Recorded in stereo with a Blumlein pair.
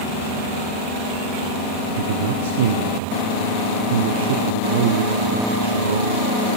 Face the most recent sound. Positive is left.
turn(degrees=-60)